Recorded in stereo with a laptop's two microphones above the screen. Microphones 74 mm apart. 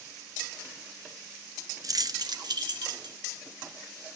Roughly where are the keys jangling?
Right.